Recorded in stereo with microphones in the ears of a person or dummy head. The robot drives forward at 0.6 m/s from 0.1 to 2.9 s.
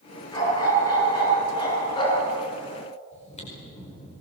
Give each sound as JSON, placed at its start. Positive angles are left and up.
{"t": 0.3, "sound": "a dog barking", "side_deg": 20, "distance_m": 8.0}
{"t": 3.1, "sound": "chewing", "side_deg": 40, "distance_m": 5.0}